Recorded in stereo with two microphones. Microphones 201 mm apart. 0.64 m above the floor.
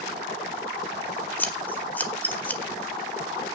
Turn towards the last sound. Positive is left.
turn(degrees=10)  # may be behind; listen again after turning